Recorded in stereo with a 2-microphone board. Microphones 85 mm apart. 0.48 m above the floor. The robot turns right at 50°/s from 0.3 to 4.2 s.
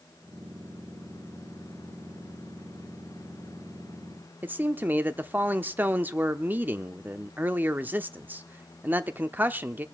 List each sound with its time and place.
4.4 s a man speaking: 20° right (ahead or behind), 0.8 m